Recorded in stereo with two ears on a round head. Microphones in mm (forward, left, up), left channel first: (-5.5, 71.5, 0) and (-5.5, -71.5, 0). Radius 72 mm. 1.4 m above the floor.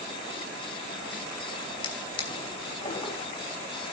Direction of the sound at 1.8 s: 30° left (ahead or behind).